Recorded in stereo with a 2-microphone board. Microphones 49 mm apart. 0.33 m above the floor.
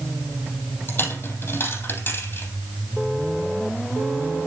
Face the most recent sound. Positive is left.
turn(degrees=45)  # may be behind; listen again after turning